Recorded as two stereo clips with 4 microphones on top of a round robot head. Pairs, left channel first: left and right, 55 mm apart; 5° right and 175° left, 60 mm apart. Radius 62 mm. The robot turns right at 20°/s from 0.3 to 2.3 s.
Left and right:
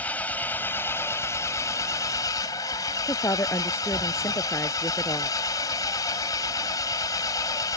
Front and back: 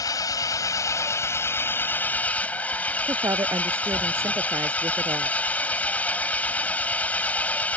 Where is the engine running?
20° left; by 7.8 s 60° left.